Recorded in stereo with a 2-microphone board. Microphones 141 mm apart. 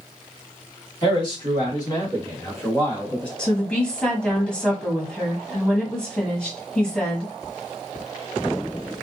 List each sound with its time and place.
1.0 s a man speaking: 40° left (ahead or behind), 2.0 m; by 3.3 s 5° left (ahead or behind), 1.8 m
3.4 s a woman speaking: 5° left (ahead or behind), 1.2 m